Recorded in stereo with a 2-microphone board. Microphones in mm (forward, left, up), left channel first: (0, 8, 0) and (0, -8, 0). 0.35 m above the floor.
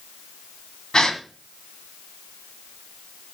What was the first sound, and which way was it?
A gasp, 50° left (ahead or behind).